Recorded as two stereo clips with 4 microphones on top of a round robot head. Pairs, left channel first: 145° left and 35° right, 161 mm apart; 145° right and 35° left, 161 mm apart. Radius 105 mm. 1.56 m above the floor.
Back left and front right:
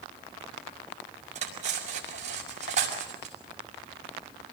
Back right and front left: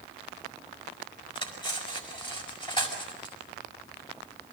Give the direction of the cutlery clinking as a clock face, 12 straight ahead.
3 o'clock.